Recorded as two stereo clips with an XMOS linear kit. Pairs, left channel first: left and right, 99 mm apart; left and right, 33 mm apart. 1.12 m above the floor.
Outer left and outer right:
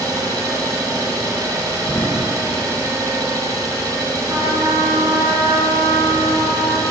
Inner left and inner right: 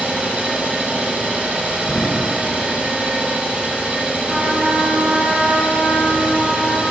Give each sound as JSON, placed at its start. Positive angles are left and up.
{"t": 0.0, "sound": "an engine running", "side_deg": -40, "distance_m": 1.2}
{"t": 1.9, "sound": "an explosion", "side_deg": 25, "distance_m": 0.6}
{"t": 4.3, "sound": "a trumpet", "side_deg": -50, "distance_m": 1.8}